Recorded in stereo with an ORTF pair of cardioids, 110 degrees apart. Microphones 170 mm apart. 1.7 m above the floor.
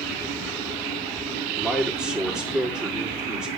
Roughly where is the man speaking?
Ahead.